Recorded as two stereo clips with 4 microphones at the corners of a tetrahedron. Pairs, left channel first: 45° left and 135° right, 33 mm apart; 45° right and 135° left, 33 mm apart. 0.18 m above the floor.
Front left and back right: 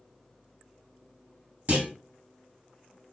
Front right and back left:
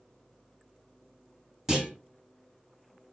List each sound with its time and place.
1.7 s a clunk: 150° right, 1.6 m